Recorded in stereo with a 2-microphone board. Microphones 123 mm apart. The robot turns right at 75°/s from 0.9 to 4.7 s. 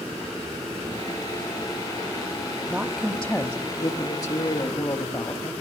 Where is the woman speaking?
30° right, 1.0 m; by 5.5 s 125° left, 1.0 m.